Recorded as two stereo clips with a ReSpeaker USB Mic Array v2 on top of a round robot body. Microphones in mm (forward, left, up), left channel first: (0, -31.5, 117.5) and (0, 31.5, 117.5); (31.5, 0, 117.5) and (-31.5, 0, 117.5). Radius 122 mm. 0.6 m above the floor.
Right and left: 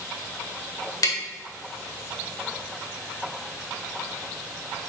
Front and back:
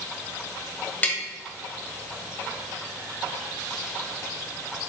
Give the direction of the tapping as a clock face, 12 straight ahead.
2 o'clock.